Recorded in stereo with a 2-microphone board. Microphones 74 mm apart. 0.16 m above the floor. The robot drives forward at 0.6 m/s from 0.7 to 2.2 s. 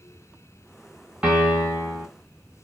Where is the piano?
10° right (ahead or behind), 1.8 m.